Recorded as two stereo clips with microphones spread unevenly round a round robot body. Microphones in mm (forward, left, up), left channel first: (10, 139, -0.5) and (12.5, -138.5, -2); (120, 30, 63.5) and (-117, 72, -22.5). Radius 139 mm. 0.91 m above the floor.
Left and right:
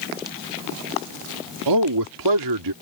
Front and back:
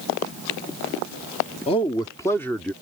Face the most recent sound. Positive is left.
turn(degrees=-105)